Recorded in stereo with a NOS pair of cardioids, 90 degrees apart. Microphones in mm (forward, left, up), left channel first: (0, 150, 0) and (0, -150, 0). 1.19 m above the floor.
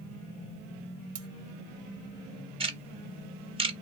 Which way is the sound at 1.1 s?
55° right.